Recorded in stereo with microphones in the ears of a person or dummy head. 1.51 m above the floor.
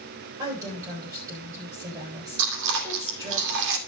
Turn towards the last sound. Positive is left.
turn(degrees=-65)  # may be behind; listen again after turning